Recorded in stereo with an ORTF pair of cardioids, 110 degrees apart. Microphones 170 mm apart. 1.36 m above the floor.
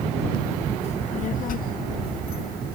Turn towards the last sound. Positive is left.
turn(degrees=70)